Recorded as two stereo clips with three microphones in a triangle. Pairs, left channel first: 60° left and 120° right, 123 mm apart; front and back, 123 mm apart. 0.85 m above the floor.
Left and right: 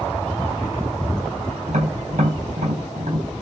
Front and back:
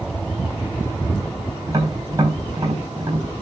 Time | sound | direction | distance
1.7 | tapping | 120° right | 4.5 m